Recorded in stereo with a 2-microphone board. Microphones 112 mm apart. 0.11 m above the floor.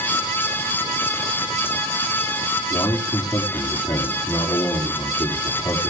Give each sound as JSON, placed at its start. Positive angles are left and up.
{"t": 2.7, "sound": "a man speaking", "side_deg": 35, "distance_m": 6.0}